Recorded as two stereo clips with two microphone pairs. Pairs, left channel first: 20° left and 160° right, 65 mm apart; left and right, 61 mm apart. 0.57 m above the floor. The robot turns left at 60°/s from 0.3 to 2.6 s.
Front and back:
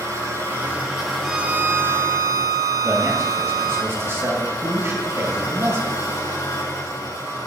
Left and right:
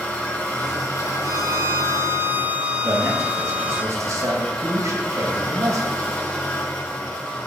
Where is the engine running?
160° left, 5 m; by 7.5 s 25° left, 5 m.